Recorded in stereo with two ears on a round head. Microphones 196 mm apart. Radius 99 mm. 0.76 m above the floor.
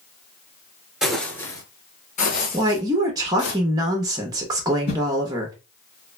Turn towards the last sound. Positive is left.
turn(degrees=50)  # may be behind; listen again after turning